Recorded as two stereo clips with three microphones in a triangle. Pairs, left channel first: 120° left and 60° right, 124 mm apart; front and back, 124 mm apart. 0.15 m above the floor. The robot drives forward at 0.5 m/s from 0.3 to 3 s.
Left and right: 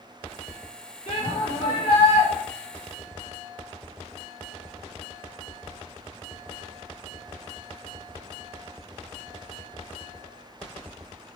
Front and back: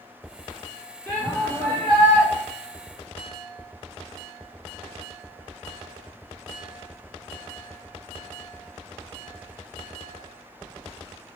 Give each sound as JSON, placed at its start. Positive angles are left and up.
{"t": 1.1, "sound": "a shout", "azimuth_deg": 75, "distance_m": 3.5}